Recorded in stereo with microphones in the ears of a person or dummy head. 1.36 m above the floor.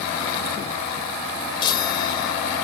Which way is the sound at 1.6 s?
25° left (ahead or behind).